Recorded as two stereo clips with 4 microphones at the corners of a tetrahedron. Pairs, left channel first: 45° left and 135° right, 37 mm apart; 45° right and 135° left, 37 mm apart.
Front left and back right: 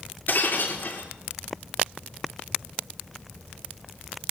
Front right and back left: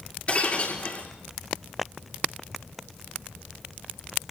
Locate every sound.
0.3 s breaking glass: 5° left, 7.5 m